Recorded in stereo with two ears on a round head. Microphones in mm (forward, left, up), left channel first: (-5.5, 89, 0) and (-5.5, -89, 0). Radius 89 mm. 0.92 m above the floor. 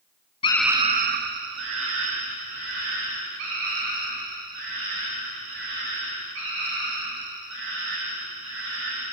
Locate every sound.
0.4 s a scream: 30° left (ahead or behind), 0.5 m; by 9.1 s 85° right, 10.5 m